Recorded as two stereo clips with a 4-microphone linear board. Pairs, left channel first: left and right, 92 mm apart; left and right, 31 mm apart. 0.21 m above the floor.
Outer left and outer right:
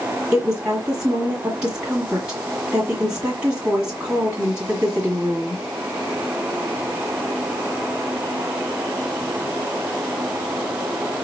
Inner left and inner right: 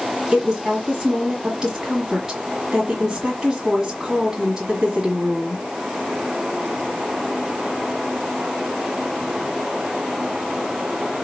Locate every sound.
0.3 s a woman speaking: 15° right (ahead or behind), 1.6 m